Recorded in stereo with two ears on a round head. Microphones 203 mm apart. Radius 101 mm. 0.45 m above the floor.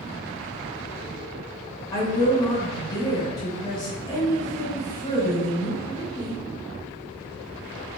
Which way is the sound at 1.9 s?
20° left (ahead or behind).